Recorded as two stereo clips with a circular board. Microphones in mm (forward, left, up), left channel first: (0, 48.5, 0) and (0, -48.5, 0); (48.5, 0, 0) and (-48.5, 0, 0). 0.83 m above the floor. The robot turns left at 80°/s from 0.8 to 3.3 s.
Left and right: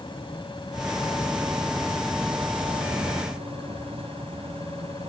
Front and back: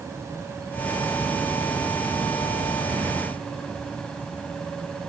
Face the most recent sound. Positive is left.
turn(degrees=-80)